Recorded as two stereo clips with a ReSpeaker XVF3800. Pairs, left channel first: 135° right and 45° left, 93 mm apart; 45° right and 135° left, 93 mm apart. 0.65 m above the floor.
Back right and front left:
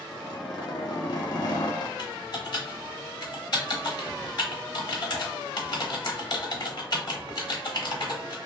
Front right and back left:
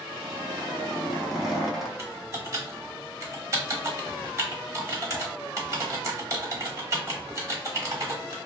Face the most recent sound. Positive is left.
turn(degrees=-170)